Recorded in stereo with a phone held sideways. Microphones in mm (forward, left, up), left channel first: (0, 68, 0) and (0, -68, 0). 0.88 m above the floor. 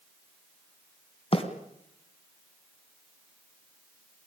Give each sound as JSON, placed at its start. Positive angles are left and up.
{"t": 1.3, "sound": "a bird", "side_deg": 40, "distance_m": 3.0}